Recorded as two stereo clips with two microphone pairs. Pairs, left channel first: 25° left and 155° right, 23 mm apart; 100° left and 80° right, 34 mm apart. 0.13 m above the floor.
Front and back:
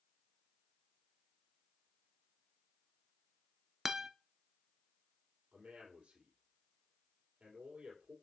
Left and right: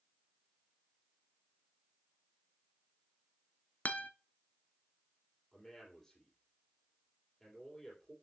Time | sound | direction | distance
3.9 | a guitar | 130° left | 0.5 m
5.5 | a man speaking | 175° left | 4.5 m